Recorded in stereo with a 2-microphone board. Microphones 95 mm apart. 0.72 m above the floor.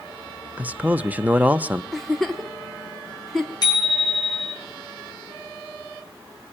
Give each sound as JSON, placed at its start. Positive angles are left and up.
{"t": 0.6, "sound": "a man speaking", "side_deg": -15, "distance_m": 0.8}
{"t": 1.9, "sound": "a giggle", "side_deg": 0, "distance_m": 1.6}
{"t": 3.6, "sound": "a bicycle bell", "side_deg": 45, "distance_m": 9.0}